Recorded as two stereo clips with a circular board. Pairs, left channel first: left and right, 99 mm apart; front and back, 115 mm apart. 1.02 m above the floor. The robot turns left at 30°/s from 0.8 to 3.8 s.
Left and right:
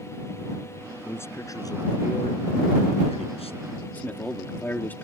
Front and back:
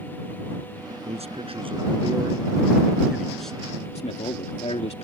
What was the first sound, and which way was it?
A man speaking, 160° left.